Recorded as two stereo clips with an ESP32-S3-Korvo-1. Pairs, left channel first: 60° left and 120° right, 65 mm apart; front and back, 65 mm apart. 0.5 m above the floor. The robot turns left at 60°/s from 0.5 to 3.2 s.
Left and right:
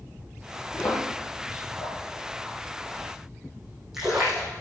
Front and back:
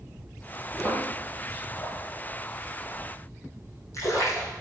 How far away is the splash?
About 7.5 m.